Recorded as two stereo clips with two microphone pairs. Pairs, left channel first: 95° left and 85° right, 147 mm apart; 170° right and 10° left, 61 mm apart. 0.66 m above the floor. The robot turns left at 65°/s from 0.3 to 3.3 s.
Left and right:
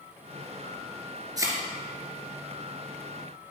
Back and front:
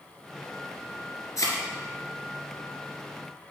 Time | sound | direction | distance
1.4 | a thud | 150° right | 2.5 m